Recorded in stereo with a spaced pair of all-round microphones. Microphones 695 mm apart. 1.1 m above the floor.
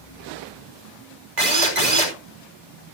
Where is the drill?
80° right, 3.5 m.